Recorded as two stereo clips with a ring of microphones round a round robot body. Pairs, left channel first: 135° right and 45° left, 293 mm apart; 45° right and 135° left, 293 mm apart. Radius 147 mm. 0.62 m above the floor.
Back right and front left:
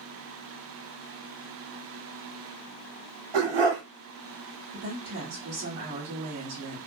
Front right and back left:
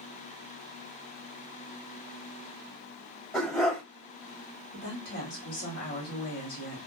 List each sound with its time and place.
3.3 s a dog barking: 45° left, 1.0 m
4.7 s a woman speaking: 5° right, 1.7 m